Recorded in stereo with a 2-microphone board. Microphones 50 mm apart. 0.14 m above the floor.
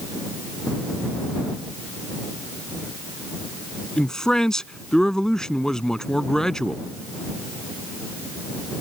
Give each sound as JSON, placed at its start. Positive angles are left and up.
{"t": 4.0, "sound": "a man speaking", "side_deg": 15}